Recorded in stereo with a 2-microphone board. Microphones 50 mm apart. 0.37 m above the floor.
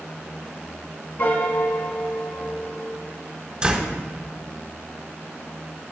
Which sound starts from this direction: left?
A piano, at 1.2 s.